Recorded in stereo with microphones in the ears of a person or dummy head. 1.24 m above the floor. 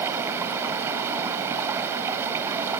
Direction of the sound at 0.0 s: 15° right (ahead or behind).